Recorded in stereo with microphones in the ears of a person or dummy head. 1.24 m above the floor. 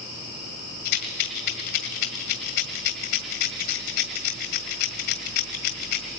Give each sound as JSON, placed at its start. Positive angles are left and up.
{"t": 0.8, "sound": "a rattle", "side_deg": 65, "distance_m": 1.9}